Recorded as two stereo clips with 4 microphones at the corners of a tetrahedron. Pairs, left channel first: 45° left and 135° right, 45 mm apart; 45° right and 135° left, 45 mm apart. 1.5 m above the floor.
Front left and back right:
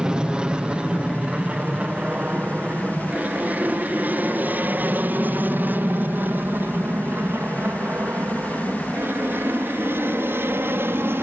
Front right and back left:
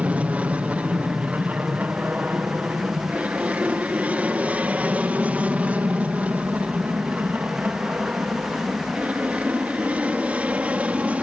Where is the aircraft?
165° left; by 11.2 s 170° right.